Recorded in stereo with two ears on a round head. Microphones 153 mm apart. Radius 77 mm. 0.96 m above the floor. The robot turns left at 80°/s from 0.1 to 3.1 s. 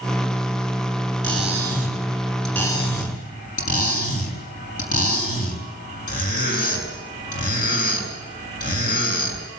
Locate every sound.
1.2 s cutlery clinking: 85° right, 6.5 m; by 9.5 s 125° left, 6.5 m